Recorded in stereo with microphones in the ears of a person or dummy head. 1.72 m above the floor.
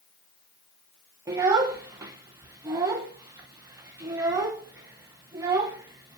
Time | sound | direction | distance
1.3 | a child speaking | 15° right (ahead or behind) | 0.8 m